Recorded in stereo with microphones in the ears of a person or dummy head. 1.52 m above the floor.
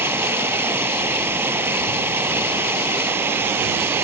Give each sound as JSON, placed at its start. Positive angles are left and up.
{"t": 0.0, "sound": "running water", "side_deg": -10}